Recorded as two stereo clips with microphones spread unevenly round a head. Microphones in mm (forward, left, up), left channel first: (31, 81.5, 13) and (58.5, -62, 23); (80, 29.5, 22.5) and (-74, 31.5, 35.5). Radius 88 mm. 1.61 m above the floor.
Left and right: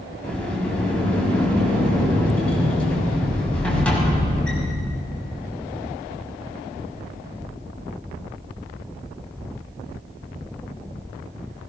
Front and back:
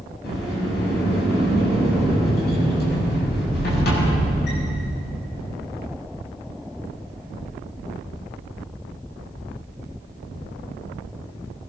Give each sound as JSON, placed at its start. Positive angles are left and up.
{"t": 0.2, "sound": "a sliding door", "azimuth_deg": 15, "distance_m": 6.5}